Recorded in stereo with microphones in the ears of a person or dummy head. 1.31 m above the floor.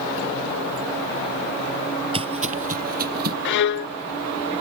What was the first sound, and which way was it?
Footsteps, 35° right (ahead or behind).